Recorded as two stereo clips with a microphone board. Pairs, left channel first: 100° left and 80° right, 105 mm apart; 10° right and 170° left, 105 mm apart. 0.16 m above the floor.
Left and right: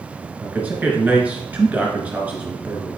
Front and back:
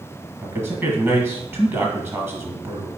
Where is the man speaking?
140° right, 1.2 m.